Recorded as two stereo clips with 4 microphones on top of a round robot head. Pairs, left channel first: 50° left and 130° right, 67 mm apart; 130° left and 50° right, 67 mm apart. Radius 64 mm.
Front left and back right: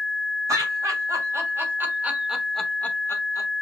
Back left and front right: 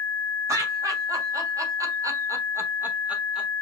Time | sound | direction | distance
0.5 | laughter | 95° right | 3 m